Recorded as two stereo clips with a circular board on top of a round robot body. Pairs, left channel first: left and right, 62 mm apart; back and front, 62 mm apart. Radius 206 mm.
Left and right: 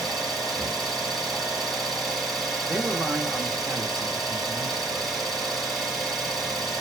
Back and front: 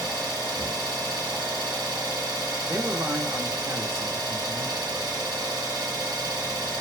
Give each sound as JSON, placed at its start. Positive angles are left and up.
{"t": 0.0, "sound": "an engine running", "azimuth_deg": 5, "distance_m": 0.9}
{"t": 2.7, "sound": "a man speaking", "azimuth_deg": -15, "distance_m": 1.6}